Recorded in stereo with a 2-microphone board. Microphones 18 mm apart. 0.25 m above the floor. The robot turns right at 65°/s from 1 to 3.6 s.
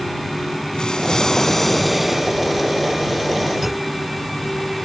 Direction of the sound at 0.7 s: 125° left.